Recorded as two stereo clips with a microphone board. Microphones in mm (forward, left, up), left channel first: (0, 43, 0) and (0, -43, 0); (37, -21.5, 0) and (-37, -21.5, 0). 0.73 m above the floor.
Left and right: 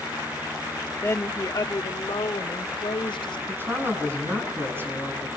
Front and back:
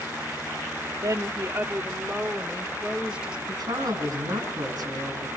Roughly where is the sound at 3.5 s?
Behind right.